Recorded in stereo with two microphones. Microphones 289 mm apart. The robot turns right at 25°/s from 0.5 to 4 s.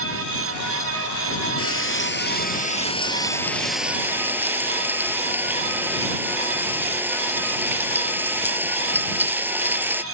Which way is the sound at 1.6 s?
125° left.